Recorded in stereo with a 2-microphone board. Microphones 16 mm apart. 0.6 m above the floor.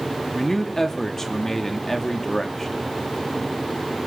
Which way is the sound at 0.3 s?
25° left (ahead or behind).